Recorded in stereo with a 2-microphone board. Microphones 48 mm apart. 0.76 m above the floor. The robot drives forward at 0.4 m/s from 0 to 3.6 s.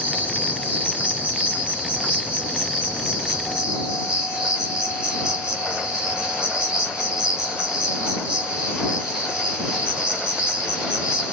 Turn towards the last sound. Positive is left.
turn(degrees=-20)  # may be behind; listen again after turning